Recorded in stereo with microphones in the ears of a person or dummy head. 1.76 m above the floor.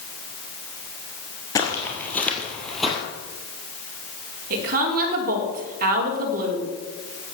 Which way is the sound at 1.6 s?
20° left (ahead or behind).